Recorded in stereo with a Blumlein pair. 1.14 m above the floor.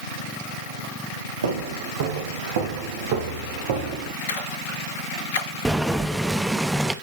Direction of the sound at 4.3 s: 55° left.